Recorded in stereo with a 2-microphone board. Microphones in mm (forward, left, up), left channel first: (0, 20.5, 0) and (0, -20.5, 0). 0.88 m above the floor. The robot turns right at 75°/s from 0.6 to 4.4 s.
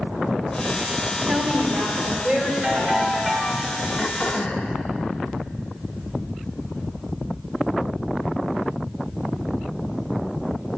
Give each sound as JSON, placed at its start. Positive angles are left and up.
{"t": 1.3, "sound": "a woman speaking", "azimuth_deg": -105, "distance_m": 3.0}
{"t": 2.6, "sound": "a ringtone", "azimuth_deg": -40, "distance_m": 2.5}
{"t": 4.0, "sound": "throat clearing", "azimuth_deg": 55, "distance_m": 0.5}